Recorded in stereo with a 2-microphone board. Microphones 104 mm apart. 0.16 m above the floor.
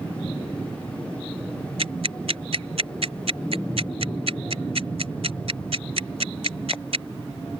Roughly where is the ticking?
Right.